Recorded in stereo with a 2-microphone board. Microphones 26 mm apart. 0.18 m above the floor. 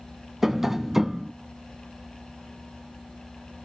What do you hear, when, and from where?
0.4 s tapping: 15° right (ahead or behind), 0.7 m